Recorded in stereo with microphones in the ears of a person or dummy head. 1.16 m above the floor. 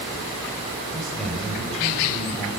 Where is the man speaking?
Centre (ahead or behind), 7 m.